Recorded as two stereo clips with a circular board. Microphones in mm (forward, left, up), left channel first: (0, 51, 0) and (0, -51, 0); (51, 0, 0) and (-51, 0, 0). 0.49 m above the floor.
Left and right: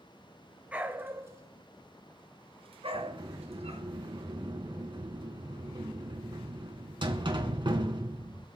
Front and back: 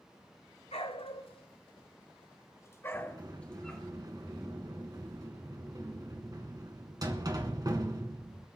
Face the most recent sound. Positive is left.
turn(degrees=-130)